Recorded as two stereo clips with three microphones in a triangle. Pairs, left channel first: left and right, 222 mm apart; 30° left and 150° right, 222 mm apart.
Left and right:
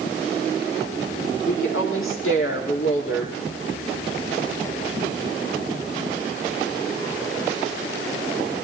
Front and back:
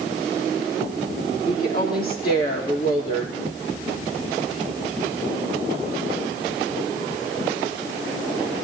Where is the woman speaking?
75° left, 4 m.